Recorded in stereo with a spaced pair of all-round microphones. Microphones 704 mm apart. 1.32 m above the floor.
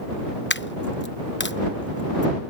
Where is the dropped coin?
15° left (ahead or behind).